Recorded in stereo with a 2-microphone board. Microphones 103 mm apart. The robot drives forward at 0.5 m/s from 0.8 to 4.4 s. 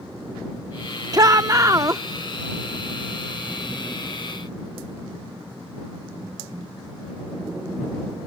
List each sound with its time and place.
1.1 s a shout: 35° right (ahead or behind); by 2.0 s 30° right (ahead or behind)